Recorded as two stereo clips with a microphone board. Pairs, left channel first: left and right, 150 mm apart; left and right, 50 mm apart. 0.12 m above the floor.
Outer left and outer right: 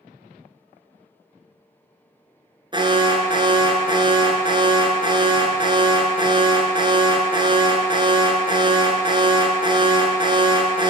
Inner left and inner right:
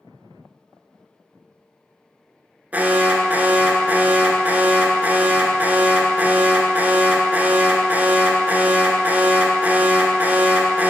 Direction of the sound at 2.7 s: 30° right (ahead or behind).